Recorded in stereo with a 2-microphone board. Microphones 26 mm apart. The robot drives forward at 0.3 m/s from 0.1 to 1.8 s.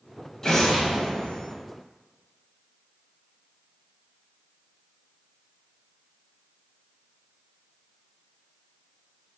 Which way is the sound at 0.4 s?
20° left (ahead or behind).